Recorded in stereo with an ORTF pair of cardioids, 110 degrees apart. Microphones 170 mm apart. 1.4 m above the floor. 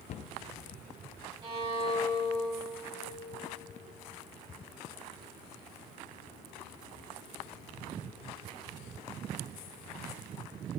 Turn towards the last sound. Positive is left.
turn(degrees=-35)